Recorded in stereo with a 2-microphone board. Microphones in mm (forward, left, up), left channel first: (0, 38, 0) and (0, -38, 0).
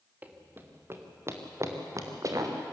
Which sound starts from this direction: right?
Running footsteps, at 0.2 s.